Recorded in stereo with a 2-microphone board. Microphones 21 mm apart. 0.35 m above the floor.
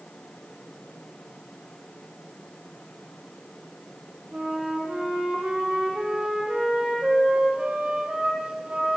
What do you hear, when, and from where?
4.3 s a flute: 65° right (ahead or behind), 6 m